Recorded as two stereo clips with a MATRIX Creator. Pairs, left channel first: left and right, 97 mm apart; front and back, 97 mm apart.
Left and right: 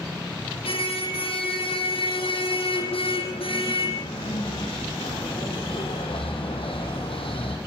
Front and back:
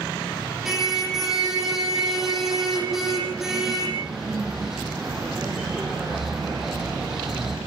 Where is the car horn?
95° left, 7 m.